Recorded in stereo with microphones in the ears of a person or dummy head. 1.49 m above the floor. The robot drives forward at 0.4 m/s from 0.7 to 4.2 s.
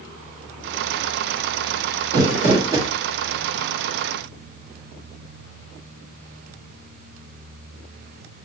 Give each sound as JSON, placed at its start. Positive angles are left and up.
{"t": 2.1, "sound": "crumpling", "side_deg": -30, "distance_m": 1.5}